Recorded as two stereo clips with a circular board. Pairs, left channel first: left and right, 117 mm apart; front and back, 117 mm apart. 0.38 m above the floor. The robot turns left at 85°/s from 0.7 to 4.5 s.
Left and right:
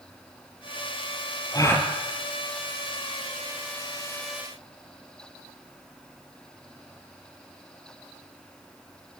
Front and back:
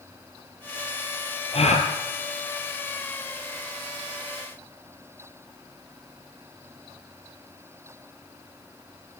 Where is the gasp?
35° left, 3.5 m; by 1.9 s 5° left, 3.5 m.